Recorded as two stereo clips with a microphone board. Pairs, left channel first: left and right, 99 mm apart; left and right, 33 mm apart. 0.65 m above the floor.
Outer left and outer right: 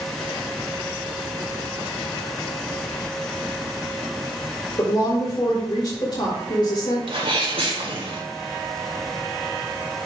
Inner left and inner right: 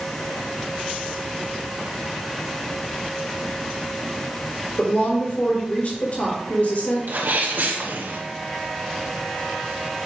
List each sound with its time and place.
4.8 s a woman speaking: 45° left (ahead or behind), 2.5 m
7.1 s a sneeze: 70° right (ahead or behind), 2 m